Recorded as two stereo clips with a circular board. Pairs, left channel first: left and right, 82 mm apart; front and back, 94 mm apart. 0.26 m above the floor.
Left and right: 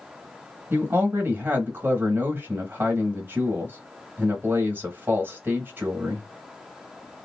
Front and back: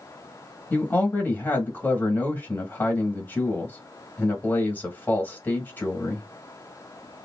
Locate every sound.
0.7 s a man speaking: 55° right, 1.1 m